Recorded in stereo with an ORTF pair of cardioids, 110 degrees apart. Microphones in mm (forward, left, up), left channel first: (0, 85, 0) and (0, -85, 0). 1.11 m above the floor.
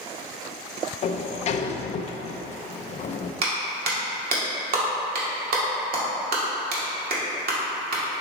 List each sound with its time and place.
1.0 s a sliding door: 45° left, 0.6 m
3.4 s a clap: 60° right, 2 m